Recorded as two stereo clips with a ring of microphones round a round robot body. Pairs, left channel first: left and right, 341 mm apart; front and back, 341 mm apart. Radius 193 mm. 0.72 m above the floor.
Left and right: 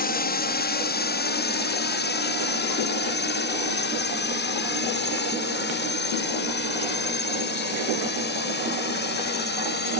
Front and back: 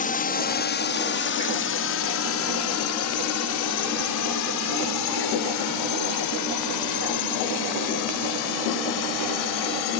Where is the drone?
50° left; by 10.0 s 30° left.